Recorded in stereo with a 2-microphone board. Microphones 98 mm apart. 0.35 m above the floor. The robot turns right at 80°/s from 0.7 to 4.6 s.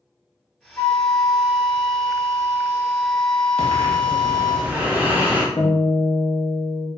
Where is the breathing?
95° right, 0.6 m; by 5.5 s 15° right, 0.6 m.